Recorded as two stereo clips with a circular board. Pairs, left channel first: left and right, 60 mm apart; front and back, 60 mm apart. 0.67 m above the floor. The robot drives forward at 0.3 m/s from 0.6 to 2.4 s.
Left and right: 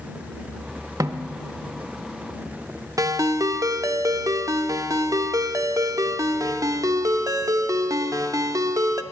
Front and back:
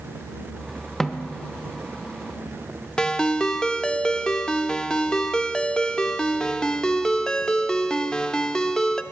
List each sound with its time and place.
1.0 s a snare drum: 85° right, 0.5 m; by 1.3 s 100° right, 0.5 m
3.0 s a ringtone: 80° right, 0.5 m